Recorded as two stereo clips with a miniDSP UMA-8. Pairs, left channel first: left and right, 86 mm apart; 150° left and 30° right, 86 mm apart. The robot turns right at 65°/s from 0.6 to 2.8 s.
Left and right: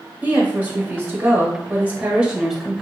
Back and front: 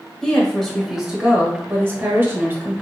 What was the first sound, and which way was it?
A woman speaking, 135° right.